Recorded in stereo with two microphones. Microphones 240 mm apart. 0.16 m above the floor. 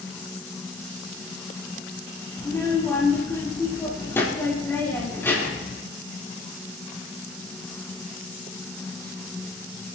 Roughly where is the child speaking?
Centre.